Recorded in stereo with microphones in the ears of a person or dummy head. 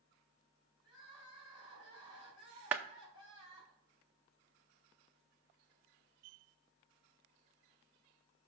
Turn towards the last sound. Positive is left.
turn(degrees=-10)  # may be behind; listen again after turning